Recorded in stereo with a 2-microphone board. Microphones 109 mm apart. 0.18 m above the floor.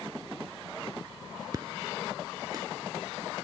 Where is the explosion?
40° right (ahead or behind).